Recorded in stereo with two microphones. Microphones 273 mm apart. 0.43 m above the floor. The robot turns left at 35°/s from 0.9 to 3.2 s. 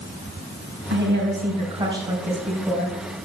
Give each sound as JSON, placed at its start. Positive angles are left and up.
{"t": 0.9, "sound": "a woman speaking", "azimuth_deg": -125, "distance_m": 3.5}